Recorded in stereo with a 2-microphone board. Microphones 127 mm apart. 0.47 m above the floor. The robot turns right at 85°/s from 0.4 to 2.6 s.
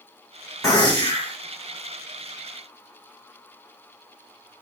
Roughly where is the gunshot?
Ahead left.